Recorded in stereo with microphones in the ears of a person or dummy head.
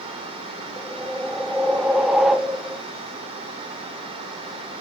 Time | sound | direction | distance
0.8 | a whoosh | centre (ahead or behind) | 0.5 m